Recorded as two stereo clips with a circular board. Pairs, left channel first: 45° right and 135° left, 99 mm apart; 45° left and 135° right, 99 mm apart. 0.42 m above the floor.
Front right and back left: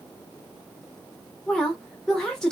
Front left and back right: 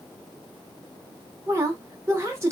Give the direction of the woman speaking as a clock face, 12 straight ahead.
4 o'clock.